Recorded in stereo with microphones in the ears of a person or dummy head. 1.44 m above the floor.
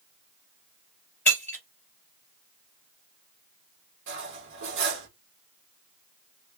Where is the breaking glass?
5° left (ahead or behind), 2 m.